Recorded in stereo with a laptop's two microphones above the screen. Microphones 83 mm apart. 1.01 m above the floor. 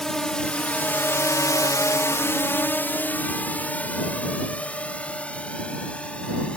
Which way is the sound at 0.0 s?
5° left (ahead or behind).